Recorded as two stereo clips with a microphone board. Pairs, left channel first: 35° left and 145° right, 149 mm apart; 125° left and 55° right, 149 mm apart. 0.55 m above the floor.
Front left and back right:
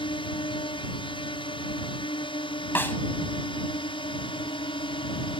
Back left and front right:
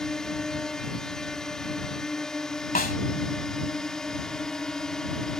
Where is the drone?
40° left.